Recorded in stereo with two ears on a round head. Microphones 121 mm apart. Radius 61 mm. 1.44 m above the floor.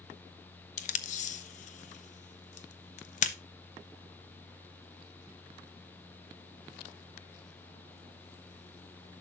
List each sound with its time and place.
0.8 s tape being pulled: 60° left (ahead or behind), 0.8 m